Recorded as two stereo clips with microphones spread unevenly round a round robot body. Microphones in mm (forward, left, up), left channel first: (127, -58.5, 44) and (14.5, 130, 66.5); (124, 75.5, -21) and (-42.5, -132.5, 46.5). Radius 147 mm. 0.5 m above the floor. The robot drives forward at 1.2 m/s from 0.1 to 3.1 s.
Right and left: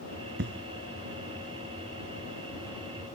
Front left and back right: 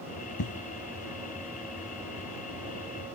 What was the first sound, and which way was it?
An explosion, 80° left.